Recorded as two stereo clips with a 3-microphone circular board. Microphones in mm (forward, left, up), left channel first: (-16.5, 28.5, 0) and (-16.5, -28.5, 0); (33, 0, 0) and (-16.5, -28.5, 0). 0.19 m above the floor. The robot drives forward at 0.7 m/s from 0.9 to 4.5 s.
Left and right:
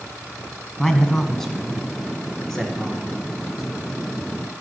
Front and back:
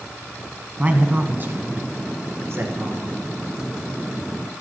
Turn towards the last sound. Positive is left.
turn(degrees=180)